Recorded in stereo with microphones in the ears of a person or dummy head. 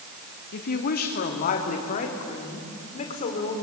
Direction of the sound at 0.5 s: 55° left (ahead or behind).